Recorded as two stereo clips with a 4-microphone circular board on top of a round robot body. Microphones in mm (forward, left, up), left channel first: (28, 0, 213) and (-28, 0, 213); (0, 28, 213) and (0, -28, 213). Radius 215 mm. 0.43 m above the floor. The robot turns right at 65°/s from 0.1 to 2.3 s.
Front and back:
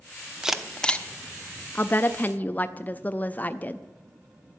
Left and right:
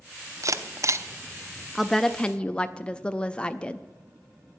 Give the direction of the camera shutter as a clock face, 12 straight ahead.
3 o'clock.